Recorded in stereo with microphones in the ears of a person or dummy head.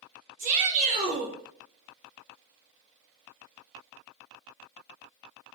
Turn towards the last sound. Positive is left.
turn(degrees=-40)  # may be behind; listen again after turning